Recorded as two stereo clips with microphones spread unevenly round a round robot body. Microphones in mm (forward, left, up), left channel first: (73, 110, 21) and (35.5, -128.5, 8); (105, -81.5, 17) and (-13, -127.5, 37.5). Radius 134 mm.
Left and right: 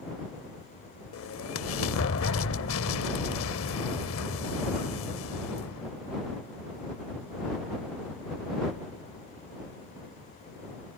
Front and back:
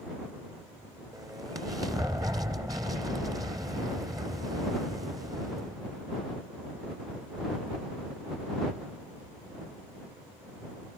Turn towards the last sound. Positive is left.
turn(degrees=125)